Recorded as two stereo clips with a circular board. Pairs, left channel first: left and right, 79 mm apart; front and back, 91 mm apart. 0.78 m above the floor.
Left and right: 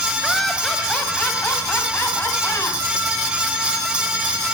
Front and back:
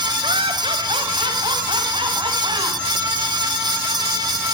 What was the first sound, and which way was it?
Laughter, straight behind.